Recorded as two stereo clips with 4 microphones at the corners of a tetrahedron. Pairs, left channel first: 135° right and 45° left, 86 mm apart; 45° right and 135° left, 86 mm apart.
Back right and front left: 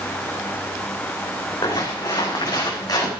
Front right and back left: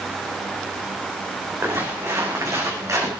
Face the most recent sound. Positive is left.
turn(degrees=-175)